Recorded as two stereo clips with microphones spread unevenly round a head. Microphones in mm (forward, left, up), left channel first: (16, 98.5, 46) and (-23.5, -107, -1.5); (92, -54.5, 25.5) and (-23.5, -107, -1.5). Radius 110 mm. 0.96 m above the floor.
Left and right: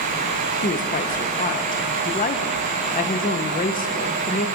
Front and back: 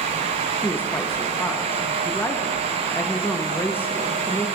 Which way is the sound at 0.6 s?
105° left.